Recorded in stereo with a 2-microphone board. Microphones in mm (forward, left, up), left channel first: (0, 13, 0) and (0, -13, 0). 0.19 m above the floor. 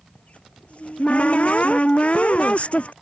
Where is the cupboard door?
55° left (ahead or behind).